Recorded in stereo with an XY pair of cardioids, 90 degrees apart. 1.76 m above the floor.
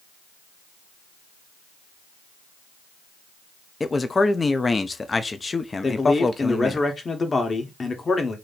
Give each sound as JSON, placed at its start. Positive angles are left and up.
{"t": 3.8, "sound": "a man speaking", "azimuth_deg": 30, "distance_m": 0.7}
{"t": 5.8, "sound": "a man speaking", "azimuth_deg": 35, "distance_m": 1.4}